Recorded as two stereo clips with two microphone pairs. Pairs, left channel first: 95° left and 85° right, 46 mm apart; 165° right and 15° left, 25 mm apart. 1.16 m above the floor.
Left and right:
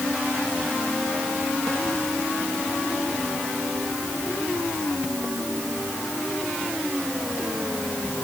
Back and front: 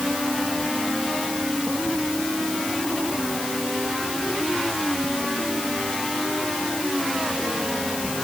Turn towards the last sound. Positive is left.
No sound to turn to.